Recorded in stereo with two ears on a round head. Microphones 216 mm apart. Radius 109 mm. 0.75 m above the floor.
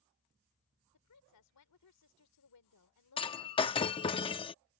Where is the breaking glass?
20° left (ahead or behind).